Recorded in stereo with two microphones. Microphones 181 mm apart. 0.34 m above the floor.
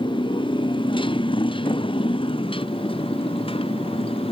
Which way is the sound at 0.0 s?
25° left (ahead or behind).